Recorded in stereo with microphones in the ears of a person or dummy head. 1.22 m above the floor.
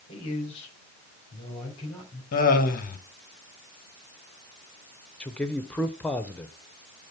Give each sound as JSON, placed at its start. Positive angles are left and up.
{"t": 0.1, "sound": "a man speaking", "side_deg": 30, "distance_m": 4.0}
{"t": 2.3, "sound": "laughter", "side_deg": 45, "distance_m": 1.4}
{"t": 5.2, "sound": "a man speaking", "side_deg": 5, "distance_m": 0.6}